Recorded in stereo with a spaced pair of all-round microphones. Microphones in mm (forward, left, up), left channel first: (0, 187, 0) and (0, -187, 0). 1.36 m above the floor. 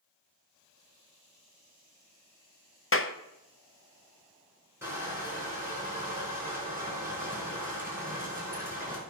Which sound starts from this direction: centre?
Crushing, at 4.8 s.